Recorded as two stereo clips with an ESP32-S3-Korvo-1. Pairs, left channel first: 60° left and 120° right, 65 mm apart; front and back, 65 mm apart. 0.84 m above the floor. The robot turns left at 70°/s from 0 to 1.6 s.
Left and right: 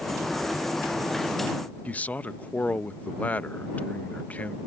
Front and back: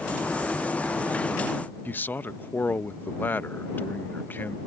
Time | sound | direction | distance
1.9 | a man speaking | 20° left | ?